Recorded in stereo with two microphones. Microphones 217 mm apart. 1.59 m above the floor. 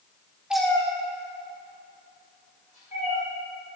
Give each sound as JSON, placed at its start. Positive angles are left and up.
{"t": 0.5, "sound": "a cat meowing", "side_deg": -5, "distance_m": 0.8}